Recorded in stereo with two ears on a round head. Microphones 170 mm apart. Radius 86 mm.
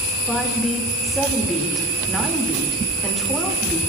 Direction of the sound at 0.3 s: Centre (ahead or behind).